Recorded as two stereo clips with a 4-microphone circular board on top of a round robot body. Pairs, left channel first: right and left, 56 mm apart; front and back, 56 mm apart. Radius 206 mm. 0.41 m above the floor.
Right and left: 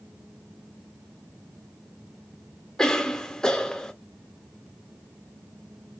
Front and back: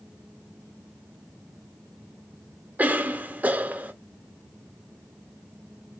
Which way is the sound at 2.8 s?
160° right.